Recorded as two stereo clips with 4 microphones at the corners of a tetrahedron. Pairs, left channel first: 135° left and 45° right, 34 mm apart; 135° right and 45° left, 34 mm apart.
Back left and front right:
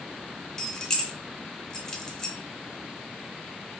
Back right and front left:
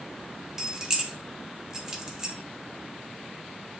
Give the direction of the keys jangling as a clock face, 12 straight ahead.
9 o'clock.